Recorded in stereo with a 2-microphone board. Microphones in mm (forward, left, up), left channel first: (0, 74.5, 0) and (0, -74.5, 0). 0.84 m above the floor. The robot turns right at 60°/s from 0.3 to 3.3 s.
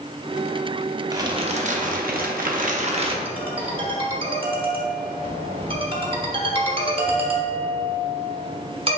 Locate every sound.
1.1 s crumpling: 155° right, 0.7 m; by 3.1 s 35° right, 0.7 m
3.2 s a ringtone: 40° right (ahead or behind), 1.0 m; by 9.0 s 35° right (ahead or behind), 1.0 m